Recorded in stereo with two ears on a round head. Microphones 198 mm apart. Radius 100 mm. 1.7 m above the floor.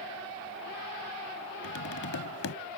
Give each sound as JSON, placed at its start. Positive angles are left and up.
{"t": 1.6, "sound": "tapping", "side_deg": 65}